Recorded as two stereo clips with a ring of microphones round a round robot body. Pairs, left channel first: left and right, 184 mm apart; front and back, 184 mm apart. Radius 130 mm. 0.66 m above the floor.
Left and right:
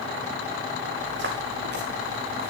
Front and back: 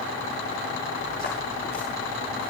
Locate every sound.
1.0 s footsteps: 65° right, 5.5 m; by 2.5 s 50° right, 4 m